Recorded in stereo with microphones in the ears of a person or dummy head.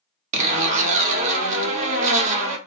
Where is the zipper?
35° right (ahead or behind), 0.6 m.